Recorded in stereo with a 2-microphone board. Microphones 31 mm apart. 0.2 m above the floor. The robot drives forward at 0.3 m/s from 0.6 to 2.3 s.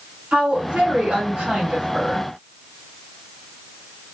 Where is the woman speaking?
45° right (ahead or behind), 2.0 m.